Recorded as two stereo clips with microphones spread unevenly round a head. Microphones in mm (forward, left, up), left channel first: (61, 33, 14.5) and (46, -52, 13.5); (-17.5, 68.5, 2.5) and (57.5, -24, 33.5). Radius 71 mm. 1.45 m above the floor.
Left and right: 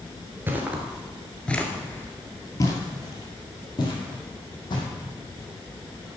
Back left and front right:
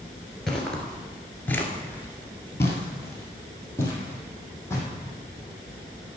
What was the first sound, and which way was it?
Footsteps, 100° right.